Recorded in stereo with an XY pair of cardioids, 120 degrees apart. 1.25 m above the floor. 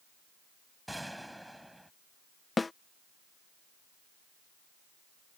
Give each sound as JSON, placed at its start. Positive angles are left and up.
{"t": 0.9, "sound": "a gunshot", "azimuth_deg": -5}
{"t": 2.6, "sound": "a snare drum", "azimuth_deg": 20}